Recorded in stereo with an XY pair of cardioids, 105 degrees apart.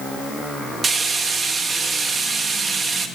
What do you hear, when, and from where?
0.8 s frying: 40° right, 0.8 m